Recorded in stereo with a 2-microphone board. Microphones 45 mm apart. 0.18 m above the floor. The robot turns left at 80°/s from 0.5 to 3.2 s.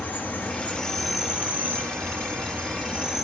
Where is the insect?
40° left, 1.9 m; by 3.3 s 175° right, 1.9 m.